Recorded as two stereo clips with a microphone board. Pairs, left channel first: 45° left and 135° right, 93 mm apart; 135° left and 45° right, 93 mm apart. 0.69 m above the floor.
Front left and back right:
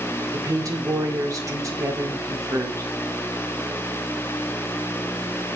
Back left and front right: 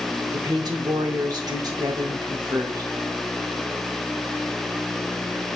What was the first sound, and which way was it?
A woman speaking, 85° right.